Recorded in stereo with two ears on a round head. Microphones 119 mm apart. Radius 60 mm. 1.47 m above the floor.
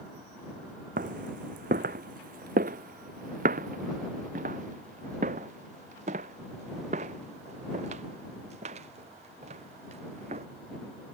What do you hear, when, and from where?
1.0 s footsteps: 65° right (ahead or behind); by 10.4 s 45° right (ahead or behind)